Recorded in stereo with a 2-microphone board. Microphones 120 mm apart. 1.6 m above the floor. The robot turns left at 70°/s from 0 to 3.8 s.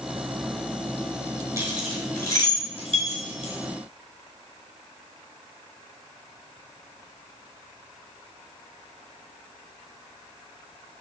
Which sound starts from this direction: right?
Keys jangling, at 1.6 s.